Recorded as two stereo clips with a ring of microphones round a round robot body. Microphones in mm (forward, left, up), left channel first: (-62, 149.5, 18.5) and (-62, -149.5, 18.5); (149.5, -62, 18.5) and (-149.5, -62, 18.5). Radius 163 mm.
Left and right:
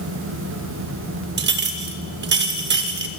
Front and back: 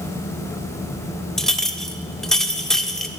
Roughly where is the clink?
Right.